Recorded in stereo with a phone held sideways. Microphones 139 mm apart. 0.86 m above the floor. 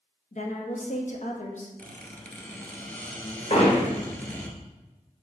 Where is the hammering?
50° left (ahead or behind), 1.7 m.